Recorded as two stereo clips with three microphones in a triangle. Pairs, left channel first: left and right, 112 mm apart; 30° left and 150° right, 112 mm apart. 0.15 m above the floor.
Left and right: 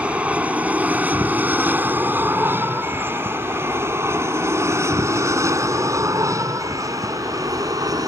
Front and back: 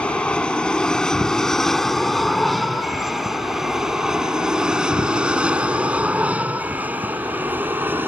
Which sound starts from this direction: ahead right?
An aircraft, at 0.0 s.